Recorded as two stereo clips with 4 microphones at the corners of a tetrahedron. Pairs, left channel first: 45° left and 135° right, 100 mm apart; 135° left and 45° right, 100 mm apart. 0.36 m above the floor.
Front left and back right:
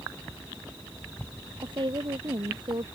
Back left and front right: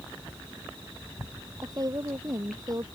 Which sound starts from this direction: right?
A woman speaking, at 1.6 s.